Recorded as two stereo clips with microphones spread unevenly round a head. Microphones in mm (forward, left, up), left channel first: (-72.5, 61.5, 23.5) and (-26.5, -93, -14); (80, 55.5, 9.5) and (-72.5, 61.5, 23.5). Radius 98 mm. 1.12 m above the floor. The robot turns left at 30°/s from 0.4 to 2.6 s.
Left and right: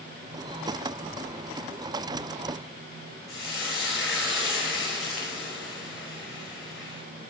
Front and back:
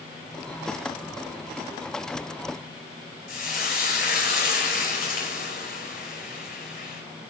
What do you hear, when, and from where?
3.3 s frying: 20° left, 5.5 m